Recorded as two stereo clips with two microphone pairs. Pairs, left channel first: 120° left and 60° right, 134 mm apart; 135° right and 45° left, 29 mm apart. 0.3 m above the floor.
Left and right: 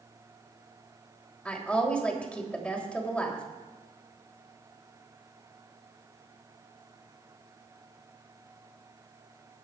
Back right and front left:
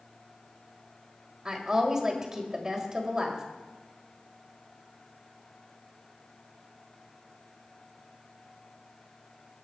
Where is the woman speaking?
55° left, 1.5 m.